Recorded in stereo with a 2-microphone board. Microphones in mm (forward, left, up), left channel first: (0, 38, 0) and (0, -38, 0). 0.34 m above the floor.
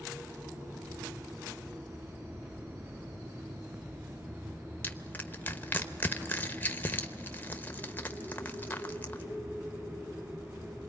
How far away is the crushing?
About 0.9 m.